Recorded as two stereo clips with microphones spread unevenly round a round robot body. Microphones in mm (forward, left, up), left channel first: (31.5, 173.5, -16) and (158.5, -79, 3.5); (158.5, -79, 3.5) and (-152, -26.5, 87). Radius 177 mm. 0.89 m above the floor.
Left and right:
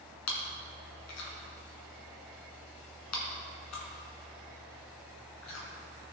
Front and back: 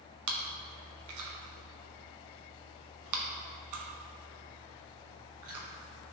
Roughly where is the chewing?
Behind left.